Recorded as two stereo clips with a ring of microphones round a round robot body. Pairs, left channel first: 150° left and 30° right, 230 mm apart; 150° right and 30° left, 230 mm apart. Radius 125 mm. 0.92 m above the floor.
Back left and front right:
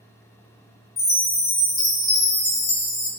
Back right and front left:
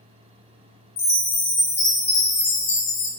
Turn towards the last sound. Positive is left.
turn(degrees=-135)